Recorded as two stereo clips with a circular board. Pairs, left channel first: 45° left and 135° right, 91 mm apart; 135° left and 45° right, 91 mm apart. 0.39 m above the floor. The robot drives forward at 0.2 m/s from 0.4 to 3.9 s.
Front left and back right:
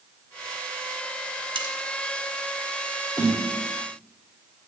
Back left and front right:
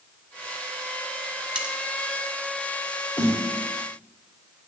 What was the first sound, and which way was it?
Cutlery clinking, 125° right.